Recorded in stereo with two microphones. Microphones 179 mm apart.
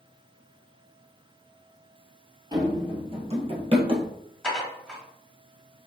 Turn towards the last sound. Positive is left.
turn(degrees=5)  # may be behind; listen again after turning